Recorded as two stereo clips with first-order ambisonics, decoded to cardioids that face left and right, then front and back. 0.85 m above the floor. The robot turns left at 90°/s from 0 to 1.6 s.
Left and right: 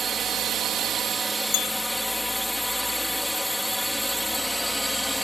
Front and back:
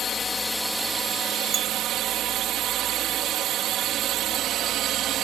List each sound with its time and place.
0.0 s a drone: 35° right; by 5.2 s straight behind
1.5 s a bell: 115° left; by 1.7 s 110° left